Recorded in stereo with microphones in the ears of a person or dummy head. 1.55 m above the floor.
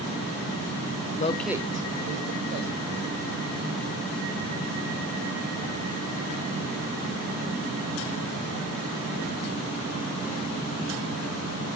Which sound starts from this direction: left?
A man speaking, at 1.2 s.